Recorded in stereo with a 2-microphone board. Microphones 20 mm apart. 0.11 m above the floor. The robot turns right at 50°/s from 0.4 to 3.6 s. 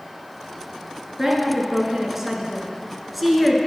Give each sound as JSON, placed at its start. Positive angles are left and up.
{"t": 1.2, "sound": "a woman speaking", "side_deg": -20, "distance_m": 1.1}